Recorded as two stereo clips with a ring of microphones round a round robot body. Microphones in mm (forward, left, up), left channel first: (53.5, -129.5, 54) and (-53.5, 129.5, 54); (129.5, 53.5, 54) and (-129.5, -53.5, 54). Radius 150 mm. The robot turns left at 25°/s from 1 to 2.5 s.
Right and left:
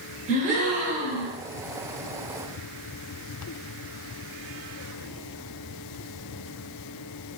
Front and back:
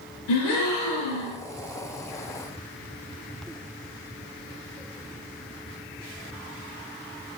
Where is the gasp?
45° left, 0.8 m; by 1.4 s 40° left, 0.8 m.